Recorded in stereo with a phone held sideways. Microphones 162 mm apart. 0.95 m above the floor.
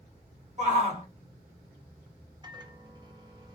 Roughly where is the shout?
Right.